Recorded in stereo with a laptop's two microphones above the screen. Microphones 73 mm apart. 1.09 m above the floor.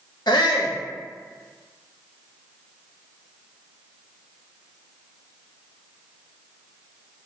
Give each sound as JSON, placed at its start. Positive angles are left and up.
{"t": 0.3, "sound": "a shout", "side_deg": 75, "distance_m": 0.9}